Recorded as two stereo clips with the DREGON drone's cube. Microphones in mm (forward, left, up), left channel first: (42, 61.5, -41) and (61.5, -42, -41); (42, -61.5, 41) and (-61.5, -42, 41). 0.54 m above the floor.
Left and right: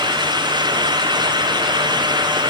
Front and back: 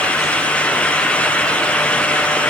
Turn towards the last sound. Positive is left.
No sound to turn to.